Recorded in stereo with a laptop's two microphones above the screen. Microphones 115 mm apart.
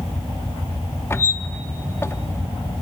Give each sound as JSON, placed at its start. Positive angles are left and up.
{"t": 1.1, "sound": "a squeak", "side_deg": 20, "distance_m": 0.6}